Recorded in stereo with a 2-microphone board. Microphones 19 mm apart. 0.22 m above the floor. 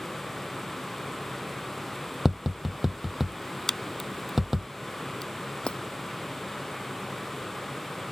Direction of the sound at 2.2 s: 10° right (ahead or behind).